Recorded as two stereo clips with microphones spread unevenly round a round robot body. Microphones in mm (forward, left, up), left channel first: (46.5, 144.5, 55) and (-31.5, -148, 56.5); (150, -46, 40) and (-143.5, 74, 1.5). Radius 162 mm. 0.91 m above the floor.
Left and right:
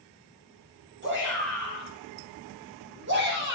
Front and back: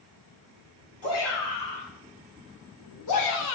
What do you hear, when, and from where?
1.0 s a shout: 50° right, 6.5 m